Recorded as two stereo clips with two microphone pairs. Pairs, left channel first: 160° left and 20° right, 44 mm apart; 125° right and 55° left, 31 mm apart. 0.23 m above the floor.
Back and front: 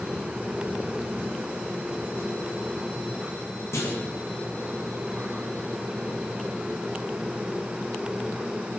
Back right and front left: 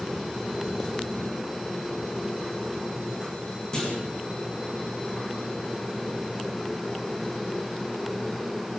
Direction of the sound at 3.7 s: 165° left.